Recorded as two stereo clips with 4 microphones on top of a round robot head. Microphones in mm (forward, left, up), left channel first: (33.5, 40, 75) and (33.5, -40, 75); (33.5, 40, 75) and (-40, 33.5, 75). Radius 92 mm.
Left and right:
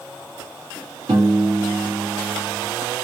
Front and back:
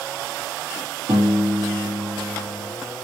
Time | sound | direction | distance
1.1 | a piano | 140° right | 1.2 m